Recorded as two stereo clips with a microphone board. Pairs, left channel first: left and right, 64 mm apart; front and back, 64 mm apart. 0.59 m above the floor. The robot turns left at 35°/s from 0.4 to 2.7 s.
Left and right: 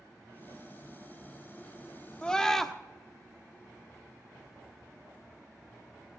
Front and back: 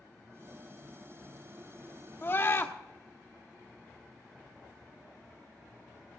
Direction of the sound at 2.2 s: 20° left.